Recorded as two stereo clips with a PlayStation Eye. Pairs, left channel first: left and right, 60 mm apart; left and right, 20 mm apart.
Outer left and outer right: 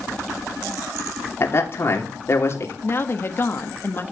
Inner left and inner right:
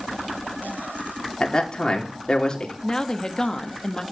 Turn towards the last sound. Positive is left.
turn(degrees=40)  # may be behind; listen again after turning